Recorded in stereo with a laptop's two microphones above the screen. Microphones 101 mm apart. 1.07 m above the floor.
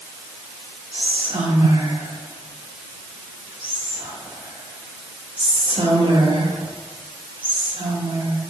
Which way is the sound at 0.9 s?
70° right (ahead or behind).